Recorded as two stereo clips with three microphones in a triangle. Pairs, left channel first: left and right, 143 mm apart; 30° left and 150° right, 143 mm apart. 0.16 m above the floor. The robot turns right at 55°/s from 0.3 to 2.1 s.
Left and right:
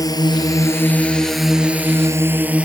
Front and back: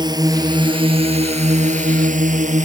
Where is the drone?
155° left; by 2.7 s 170° right.